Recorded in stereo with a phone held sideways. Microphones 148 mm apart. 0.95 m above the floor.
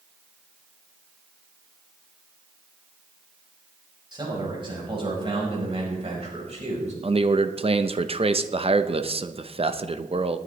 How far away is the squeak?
I don't hear a squeak.